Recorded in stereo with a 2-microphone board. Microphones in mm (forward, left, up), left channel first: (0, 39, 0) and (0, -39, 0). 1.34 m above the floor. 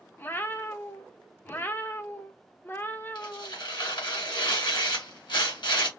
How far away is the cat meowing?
About 0.6 m.